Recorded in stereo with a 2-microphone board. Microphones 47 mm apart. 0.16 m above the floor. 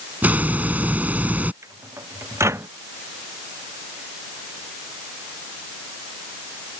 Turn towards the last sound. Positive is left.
turn(degrees=-80)